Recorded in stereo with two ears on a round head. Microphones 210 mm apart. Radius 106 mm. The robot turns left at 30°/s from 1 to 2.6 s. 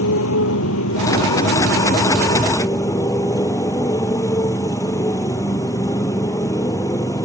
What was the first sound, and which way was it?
A motorcycle, 60° left.